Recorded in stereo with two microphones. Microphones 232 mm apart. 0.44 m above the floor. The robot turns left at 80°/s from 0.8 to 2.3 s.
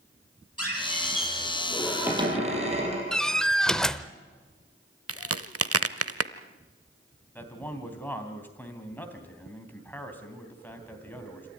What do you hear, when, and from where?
0.6 s a squeak: 90° left, 5.5 m; by 3.0 s 30° right, 5.5 m
3.1 s a door slam: centre (ahead or behind), 0.7 m
5.1 s a crack: 80° right, 0.7 m
7.3 s a man speaking: 5° left (ahead or behind), 3 m